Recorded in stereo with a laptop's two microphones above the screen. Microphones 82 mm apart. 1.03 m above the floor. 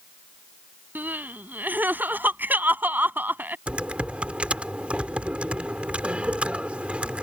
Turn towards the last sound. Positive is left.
turn(degrees=-15)  # may be behind; listen again after turning